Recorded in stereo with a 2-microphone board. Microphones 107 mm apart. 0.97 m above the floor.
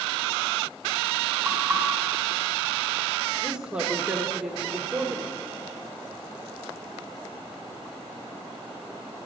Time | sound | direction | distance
1.4 | knocking | centre (ahead or behind) | 4 m
3.4 | a woman speaking | 10° right (ahead or behind) | 1.2 m